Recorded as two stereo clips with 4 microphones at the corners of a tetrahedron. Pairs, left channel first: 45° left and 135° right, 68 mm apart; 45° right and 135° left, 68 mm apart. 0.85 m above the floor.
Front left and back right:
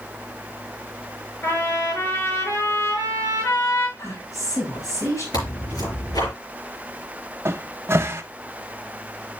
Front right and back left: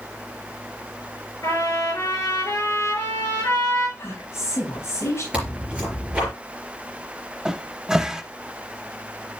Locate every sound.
1.4 s a trumpet: 5° right, 5.5 m
4.0 s a woman speaking: 5° left, 5.5 m
5.3 s tearing paper: 60° left, 4.5 m
7.5 s a cupboard door: 155° right, 0.6 m